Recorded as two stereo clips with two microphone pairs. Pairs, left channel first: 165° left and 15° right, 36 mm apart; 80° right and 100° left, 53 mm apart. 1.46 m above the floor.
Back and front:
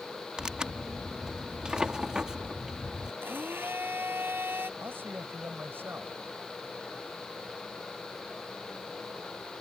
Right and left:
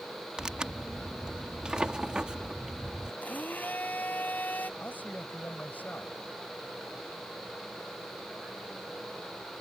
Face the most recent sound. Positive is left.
turn(degrees=-25)